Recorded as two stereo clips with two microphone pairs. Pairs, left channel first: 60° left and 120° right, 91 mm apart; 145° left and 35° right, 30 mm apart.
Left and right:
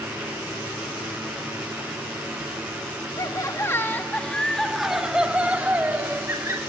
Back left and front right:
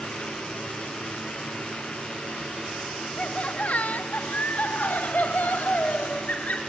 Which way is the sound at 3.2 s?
105° left.